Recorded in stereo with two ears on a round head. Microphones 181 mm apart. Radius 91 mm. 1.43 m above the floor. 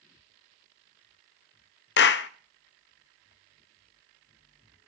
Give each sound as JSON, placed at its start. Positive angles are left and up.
{"t": 2.0, "sound": "a clap", "side_deg": 55, "distance_m": 0.6}